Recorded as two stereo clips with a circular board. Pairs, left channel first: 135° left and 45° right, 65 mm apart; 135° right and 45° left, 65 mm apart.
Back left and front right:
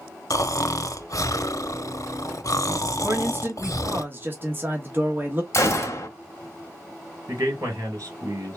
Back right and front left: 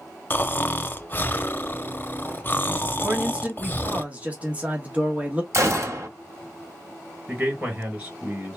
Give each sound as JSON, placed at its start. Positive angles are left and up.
{"t": 0.3, "sound": "snoring", "azimuth_deg": 165, "distance_m": 0.6}
{"t": 3.0, "sound": "a man speaking", "azimuth_deg": -15, "distance_m": 1.1}
{"t": 5.5, "sound": "a gunshot", "azimuth_deg": 90, "distance_m": 1.5}
{"t": 7.3, "sound": "a man speaking", "azimuth_deg": -20, "distance_m": 3.0}